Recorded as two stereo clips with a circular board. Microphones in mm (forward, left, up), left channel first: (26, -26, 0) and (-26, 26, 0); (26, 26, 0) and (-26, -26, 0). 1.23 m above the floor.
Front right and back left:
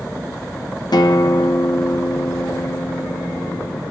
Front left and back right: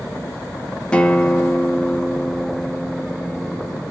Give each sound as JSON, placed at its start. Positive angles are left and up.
{"t": 0.9, "sound": "a guitar", "azimuth_deg": -30, "distance_m": 0.9}